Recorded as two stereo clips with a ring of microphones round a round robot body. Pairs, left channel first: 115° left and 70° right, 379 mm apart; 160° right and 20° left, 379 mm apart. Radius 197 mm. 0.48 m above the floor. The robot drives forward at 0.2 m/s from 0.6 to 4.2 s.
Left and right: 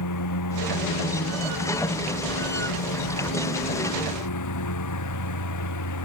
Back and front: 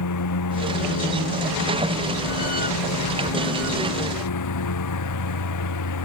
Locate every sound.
0.0 s a lawn mower: 155° left; by 6.1 s 160° left